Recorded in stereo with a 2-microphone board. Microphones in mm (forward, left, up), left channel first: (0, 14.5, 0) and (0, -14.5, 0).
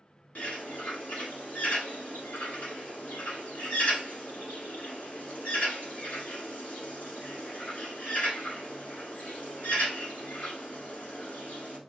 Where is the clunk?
No clunk in this recording.